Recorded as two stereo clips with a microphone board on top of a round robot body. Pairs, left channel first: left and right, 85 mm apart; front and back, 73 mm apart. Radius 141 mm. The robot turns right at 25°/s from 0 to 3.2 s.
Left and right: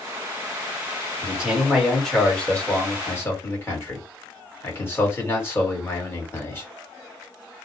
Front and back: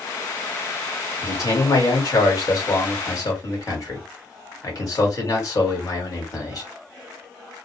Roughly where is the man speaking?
Ahead.